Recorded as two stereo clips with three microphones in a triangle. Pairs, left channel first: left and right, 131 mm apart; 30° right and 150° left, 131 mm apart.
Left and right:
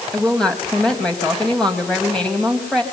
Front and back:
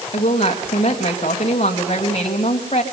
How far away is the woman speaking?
About 3 m.